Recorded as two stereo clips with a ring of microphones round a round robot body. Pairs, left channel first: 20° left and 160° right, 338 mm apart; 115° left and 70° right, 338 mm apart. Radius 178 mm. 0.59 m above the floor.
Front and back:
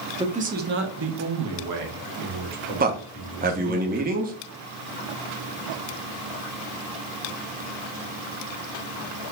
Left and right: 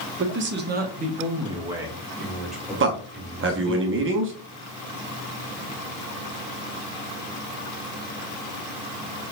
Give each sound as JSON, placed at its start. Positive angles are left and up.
{"t": 0.2, "sound": "a man speaking", "azimuth_deg": -90, "distance_m": 1.0}
{"t": 2.8, "sound": "a man speaking", "azimuth_deg": -105, "distance_m": 0.9}